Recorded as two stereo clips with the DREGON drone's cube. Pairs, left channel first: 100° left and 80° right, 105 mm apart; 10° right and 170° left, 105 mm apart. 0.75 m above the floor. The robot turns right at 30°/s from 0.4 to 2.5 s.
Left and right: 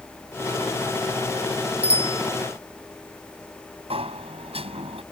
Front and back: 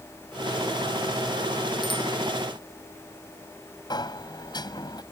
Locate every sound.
1.8 s a bicycle bell: 55° right; by 2.2 s 45° right
3.9 s a sliding door: 60° right